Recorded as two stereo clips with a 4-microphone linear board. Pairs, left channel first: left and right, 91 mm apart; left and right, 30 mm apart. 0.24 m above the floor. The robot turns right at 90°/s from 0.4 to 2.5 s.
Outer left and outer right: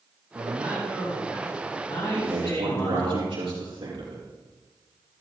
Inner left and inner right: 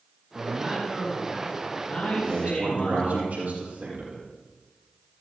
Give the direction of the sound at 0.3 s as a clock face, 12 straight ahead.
2 o'clock.